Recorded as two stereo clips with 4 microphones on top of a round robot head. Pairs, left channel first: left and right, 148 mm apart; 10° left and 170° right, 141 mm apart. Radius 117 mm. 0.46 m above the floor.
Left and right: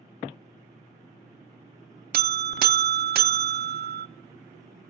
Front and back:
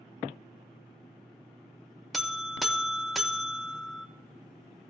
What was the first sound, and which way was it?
A buzzer, 80° right.